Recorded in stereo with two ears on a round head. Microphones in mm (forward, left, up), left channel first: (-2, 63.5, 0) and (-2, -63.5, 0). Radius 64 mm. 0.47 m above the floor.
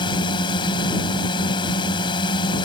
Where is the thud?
I don't hear a thud.